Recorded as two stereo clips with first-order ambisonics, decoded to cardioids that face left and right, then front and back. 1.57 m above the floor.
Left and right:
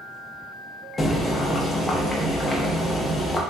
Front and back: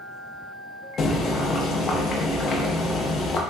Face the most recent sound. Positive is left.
turn(degrees=30)